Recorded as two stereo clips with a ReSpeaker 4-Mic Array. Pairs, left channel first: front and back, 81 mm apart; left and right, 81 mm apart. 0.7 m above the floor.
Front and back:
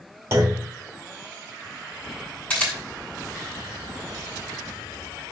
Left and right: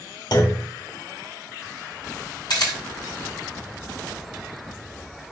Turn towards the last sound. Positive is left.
turn(degrees=70)